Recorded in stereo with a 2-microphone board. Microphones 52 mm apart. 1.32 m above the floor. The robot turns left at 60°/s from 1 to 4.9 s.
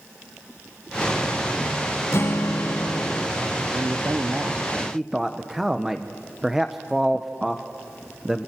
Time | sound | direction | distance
2.1 | a guitar | 120° left | 0.7 m
3.7 | a man speaking | 75° right (ahead or behind) | 0.8 m